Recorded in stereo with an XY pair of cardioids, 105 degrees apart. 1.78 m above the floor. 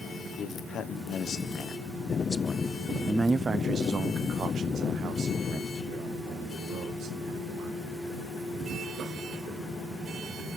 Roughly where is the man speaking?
Left.